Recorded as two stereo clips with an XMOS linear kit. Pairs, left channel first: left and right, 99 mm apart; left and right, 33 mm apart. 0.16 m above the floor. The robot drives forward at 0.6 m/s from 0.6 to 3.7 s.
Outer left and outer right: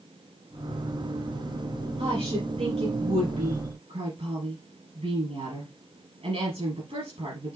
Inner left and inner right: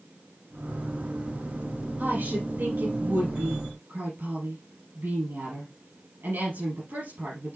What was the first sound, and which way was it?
A woman speaking, 70° right (ahead or behind).